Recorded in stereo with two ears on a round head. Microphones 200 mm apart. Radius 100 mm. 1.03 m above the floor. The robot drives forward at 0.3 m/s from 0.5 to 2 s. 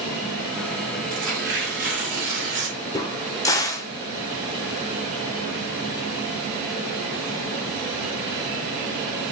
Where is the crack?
15° left (ahead or behind), 0.7 m.